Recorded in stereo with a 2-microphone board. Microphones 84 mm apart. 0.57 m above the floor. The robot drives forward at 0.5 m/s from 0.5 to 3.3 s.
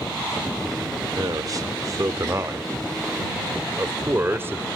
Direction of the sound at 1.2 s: 50° right (ahead or behind).